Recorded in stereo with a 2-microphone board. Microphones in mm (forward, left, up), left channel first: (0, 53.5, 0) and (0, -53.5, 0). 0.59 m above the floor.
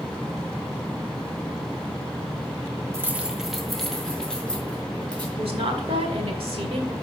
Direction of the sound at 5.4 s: 65° right (ahead or behind).